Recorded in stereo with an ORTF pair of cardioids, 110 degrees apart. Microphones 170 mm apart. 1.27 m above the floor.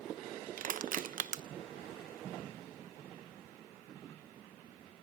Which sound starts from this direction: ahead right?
Crushing, at 0.6 s.